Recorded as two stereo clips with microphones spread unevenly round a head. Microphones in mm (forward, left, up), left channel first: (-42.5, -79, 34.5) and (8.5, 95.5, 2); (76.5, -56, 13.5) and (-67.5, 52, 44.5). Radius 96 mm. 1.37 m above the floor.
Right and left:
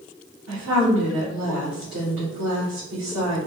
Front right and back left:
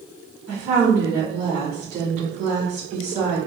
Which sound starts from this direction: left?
A woman speaking, at 0.5 s.